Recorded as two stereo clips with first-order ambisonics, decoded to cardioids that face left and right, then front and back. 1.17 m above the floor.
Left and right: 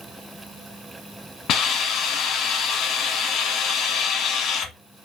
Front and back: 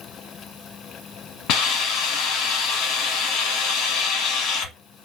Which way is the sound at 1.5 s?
35° left.